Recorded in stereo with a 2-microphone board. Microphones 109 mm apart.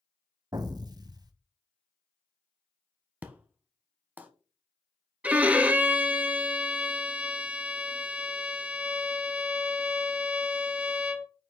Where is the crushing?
I don't hear crushing.